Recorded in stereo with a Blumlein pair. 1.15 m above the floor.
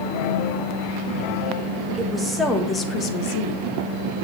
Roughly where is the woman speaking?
Ahead.